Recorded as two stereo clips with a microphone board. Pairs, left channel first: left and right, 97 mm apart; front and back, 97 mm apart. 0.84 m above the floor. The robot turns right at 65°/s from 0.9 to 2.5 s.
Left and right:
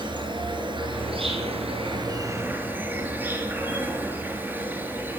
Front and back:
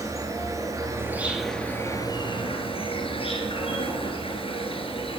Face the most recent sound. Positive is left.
turn(degrees=-20)